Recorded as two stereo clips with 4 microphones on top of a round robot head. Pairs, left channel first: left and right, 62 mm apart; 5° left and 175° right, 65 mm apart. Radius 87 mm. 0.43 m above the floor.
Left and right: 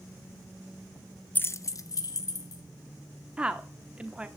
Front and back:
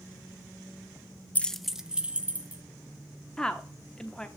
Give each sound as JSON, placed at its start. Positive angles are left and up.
{"t": 1.4, "sound": "keys jangling", "azimuth_deg": 50, "distance_m": 0.5}
{"t": 3.4, "sound": "a woman speaking", "azimuth_deg": -50, "distance_m": 1.0}